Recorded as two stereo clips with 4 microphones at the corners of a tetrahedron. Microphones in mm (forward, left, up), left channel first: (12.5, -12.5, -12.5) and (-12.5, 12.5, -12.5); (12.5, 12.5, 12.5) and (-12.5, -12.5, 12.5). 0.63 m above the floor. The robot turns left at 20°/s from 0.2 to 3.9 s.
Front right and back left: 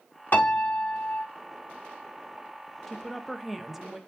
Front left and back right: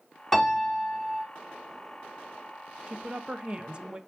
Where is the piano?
40° right, 1.9 m; by 1.2 s 55° right, 1.9 m.